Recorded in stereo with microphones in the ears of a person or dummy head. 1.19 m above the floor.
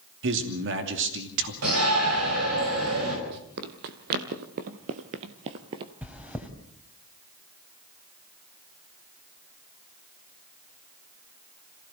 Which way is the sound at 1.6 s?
80° right.